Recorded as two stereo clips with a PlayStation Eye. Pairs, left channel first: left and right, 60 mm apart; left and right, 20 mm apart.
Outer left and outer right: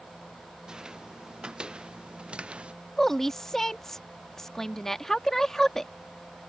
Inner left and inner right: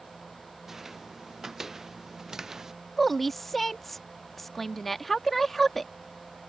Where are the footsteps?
10° right (ahead or behind); by 2.7 s 20° right (ahead or behind).